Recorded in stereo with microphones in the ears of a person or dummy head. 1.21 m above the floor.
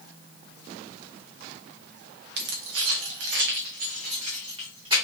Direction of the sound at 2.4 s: 65° right (ahead or behind).